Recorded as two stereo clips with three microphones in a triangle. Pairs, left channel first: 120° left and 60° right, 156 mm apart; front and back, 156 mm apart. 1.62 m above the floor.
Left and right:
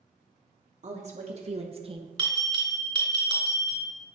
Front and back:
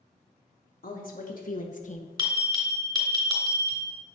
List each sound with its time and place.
0.8 s a woman speaking: 20° right, 1.4 m; by 2.1 s 10° right, 0.7 m
2.2 s a bell: 120° right, 2.5 m